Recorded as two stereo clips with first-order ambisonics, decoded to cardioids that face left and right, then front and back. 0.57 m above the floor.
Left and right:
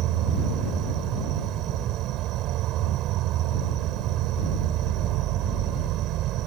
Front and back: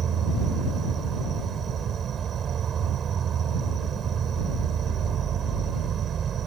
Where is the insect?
120° right.